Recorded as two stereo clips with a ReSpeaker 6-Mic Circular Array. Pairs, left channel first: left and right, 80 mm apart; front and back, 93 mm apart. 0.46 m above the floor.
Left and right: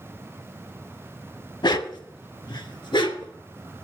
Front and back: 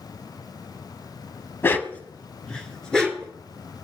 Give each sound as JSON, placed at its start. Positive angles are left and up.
{"t": 1.6, "sound": "a dog barking", "azimuth_deg": 65, "distance_m": 0.7}